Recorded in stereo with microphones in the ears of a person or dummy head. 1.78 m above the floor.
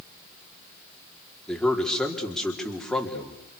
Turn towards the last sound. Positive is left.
turn(degrees=5)  # may be behind; listen again after turning